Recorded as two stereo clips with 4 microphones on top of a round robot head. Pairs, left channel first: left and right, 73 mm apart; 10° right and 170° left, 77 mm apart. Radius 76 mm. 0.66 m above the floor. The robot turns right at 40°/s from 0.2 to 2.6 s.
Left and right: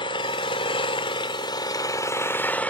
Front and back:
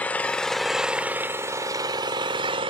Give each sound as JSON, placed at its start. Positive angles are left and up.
{"t": 0.0, "sound": "an engine running", "azimuth_deg": 65, "distance_m": 0.8}